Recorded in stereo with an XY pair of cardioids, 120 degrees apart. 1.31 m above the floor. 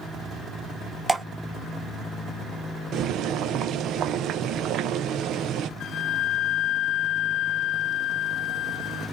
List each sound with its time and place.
1.1 s dripping: 15° right, 1.0 m
2.9 s boiling: 65° right, 0.9 m
5.8 s a flute: 65° left, 0.7 m